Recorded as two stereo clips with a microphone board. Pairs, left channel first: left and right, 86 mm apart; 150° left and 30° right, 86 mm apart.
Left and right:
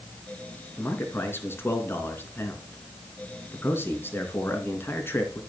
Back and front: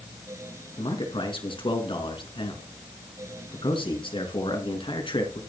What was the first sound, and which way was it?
A man speaking, 155° left.